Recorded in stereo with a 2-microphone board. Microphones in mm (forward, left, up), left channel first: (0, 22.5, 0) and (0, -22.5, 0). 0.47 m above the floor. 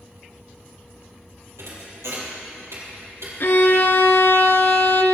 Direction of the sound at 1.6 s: 80° right.